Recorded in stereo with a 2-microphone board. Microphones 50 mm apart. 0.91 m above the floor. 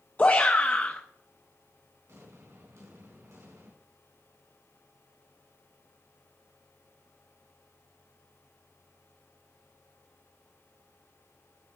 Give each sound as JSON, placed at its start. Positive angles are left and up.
{"t": 0.2, "sound": "a shout", "side_deg": 30, "distance_m": 0.6}
{"t": 2.1, "sound": "an explosion", "side_deg": -85, "distance_m": 4.0}